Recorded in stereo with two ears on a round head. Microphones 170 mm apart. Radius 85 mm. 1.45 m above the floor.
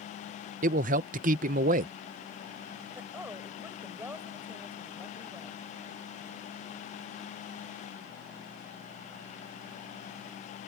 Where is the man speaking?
45° right (ahead or behind).